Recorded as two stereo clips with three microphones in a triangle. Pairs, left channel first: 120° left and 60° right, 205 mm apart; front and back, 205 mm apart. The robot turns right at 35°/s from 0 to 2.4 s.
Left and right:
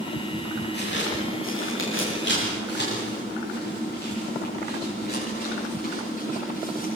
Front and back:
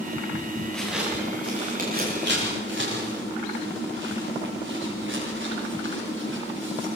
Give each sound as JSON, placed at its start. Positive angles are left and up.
{"t": 0.7, "sound": "footsteps", "azimuth_deg": 85, "distance_m": 7.5}